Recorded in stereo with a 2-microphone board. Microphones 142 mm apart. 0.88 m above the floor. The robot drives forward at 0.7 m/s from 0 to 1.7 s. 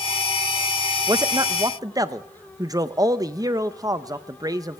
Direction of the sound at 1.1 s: 25° right (ahead or behind).